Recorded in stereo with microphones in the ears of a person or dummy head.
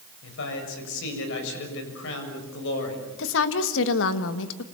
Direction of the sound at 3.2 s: 70° left (ahead or behind).